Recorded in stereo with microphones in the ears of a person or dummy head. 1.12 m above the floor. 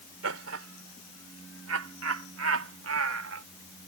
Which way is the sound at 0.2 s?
70° right (ahead or behind).